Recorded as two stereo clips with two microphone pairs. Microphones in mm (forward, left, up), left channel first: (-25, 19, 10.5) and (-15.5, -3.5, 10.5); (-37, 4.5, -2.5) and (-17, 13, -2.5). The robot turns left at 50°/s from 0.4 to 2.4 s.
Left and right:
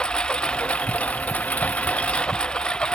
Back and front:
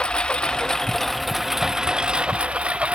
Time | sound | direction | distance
0.0 | a lawn mower | 155° left | ?